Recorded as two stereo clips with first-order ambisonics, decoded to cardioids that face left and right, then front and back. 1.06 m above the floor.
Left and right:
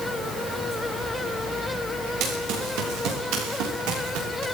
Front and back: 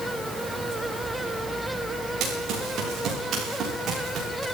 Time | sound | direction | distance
2.2 | running footsteps | 130° right | 9 m